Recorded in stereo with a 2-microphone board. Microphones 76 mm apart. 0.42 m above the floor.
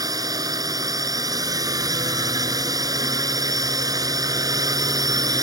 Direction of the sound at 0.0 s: 50° right (ahead or behind).